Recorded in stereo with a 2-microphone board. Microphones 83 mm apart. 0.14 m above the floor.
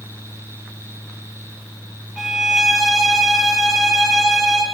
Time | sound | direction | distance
2.2 | a violin | centre (ahead or behind) | 8.5 m